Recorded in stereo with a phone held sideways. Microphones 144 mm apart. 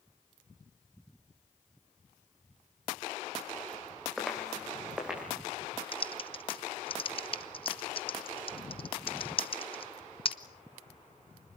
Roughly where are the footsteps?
Centre.